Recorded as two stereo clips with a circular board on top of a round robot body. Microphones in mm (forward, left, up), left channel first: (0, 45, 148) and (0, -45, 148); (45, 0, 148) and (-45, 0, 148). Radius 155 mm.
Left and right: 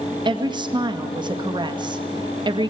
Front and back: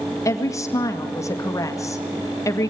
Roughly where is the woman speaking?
Ahead right.